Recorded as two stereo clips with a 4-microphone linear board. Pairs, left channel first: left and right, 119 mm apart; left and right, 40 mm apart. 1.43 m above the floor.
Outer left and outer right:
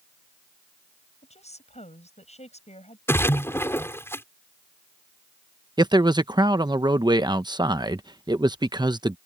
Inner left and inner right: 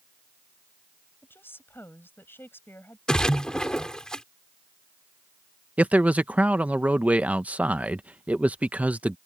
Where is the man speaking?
35° right (ahead or behind).